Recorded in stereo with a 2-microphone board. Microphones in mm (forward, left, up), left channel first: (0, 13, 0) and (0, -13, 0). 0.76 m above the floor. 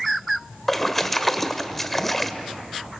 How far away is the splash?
About 1.5 m.